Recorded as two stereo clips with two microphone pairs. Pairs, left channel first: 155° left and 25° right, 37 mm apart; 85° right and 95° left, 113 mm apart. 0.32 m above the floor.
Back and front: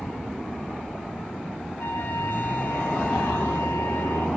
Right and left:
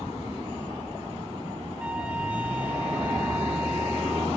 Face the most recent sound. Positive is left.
turn(degrees=175)